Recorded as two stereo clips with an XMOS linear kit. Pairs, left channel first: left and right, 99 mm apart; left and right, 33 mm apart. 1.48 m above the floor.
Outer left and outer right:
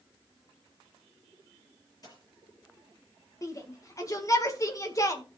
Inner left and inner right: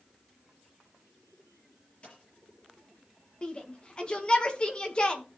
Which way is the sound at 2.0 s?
40° left (ahead or behind).